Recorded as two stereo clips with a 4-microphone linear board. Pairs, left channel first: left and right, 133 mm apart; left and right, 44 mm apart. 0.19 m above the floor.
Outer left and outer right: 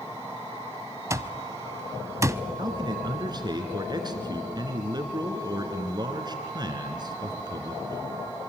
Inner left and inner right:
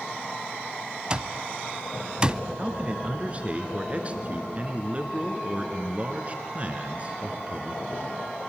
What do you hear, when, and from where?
1.1 s an alarm clock: 20° right (ahead or behind), 0.5 m
2.6 s a man speaking: 30° right (ahead or behind), 2.5 m